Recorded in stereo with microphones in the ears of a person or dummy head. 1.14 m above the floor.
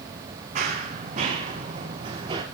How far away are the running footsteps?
About 4 m.